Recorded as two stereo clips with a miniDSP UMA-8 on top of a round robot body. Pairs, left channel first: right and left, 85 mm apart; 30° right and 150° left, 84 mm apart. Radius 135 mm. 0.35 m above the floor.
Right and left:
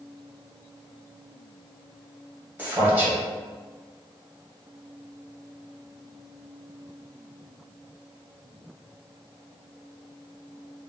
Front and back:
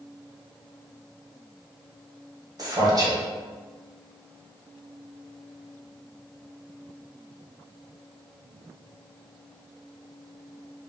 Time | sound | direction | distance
2.6 | a man speaking | 150° left | 1.6 m